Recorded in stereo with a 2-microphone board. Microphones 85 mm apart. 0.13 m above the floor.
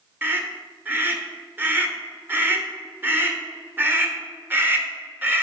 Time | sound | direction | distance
0.2 | a scream | 25° right (ahead or behind) | 1.4 m